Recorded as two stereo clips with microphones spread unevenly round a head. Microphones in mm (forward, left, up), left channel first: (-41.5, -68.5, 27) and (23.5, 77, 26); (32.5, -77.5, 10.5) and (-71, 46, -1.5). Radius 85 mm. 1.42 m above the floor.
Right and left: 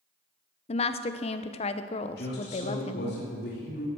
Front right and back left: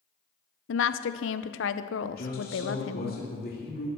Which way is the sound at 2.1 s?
80° right.